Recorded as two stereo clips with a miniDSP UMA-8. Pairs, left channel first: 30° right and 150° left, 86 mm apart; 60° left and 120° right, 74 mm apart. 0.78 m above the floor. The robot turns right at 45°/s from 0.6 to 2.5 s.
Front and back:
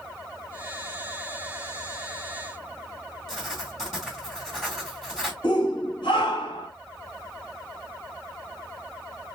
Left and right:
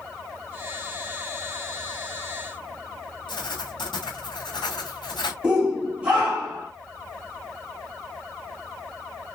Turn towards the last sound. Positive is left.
turn(degrees=-45)